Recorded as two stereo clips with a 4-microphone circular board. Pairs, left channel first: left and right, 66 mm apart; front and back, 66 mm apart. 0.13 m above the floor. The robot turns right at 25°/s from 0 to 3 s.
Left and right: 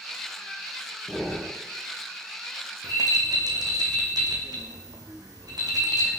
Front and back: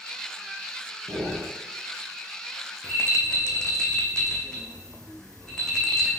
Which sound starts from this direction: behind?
Breathing, at 1.1 s.